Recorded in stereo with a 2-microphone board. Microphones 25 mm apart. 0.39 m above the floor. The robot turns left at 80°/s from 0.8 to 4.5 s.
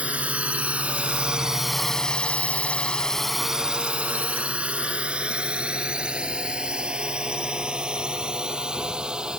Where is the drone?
70° right (ahead or behind); by 9.4 s 40° right (ahead or behind).